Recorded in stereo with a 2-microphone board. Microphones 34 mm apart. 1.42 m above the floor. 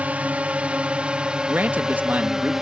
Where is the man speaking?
65° right (ahead or behind).